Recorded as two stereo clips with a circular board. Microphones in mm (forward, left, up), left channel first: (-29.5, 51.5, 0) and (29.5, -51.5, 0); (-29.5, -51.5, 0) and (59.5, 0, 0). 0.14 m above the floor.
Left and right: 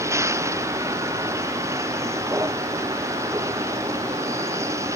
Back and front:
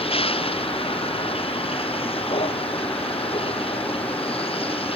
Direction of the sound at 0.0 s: 125° right.